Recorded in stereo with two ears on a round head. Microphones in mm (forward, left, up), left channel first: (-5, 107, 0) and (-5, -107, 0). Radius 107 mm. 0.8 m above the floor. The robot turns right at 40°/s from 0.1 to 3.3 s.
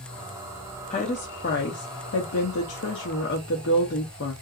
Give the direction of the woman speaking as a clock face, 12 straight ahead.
11 o'clock.